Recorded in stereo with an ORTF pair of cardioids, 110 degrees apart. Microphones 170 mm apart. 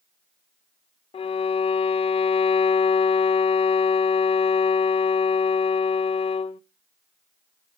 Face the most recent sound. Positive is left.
turn(degrees=35)